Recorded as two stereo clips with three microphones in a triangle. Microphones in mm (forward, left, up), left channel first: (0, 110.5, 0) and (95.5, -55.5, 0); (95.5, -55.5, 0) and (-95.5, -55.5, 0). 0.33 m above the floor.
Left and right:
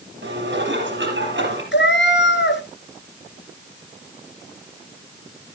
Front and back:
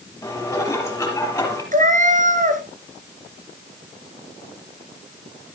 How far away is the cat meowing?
About 1.5 m.